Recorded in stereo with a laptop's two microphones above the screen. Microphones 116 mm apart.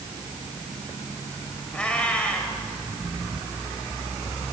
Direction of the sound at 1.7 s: 10° left (ahead or behind).